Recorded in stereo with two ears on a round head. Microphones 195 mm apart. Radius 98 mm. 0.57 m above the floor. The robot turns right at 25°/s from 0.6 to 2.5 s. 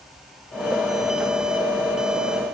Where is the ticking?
No ticking in this recording.